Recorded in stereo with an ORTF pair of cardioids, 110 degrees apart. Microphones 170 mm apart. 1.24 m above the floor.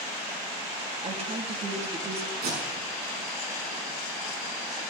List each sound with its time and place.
1.0 s a woman speaking: 40° right, 2.5 m
2.4 s tape being pulled: 65° right, 6.5 m